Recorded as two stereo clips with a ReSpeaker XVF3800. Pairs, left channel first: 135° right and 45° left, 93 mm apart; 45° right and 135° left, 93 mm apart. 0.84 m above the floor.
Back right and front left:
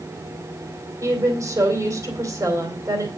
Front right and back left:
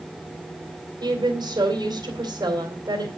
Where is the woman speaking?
95° left, 2.5 m.